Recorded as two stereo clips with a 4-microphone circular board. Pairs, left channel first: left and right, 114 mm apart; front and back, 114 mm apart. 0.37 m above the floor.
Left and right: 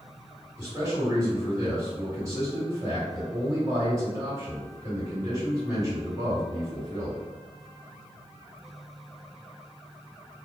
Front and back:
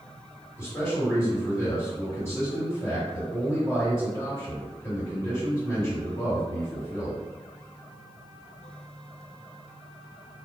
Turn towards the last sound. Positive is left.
turn(degrees=-50)